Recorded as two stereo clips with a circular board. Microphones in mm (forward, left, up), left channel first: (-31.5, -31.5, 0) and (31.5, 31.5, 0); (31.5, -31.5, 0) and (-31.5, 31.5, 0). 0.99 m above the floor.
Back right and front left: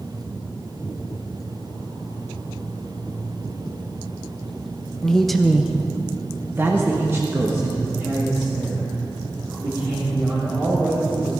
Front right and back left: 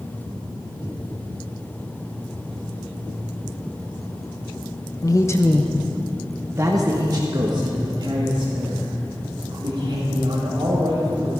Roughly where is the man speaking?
Ahead right.